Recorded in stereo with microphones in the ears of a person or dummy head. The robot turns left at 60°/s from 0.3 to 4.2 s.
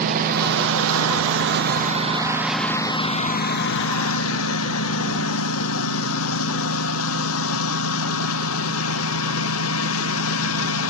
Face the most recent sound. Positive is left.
turn(degrees=90)